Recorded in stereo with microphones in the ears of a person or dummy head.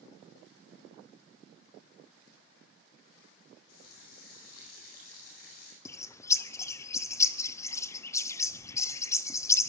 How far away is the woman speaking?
No woman speaking in this recording.